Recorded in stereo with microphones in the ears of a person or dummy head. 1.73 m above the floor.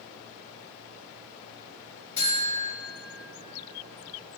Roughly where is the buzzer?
Centre.